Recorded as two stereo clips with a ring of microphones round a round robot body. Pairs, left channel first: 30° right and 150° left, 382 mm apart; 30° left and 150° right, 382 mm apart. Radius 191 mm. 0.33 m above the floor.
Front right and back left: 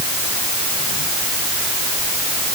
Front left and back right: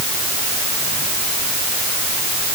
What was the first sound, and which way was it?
Only background noise.